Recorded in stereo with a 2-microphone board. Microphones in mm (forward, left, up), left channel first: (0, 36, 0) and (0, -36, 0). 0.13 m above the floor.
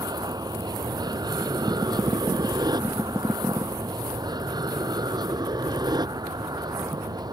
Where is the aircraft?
70° right (ahead or behind).